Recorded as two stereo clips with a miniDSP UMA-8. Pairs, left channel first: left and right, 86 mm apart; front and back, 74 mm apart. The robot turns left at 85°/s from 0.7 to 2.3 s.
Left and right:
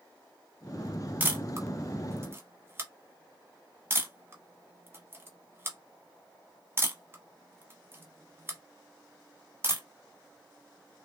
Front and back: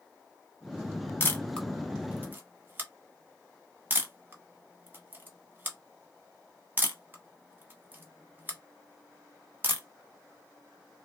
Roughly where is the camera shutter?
Ahead right.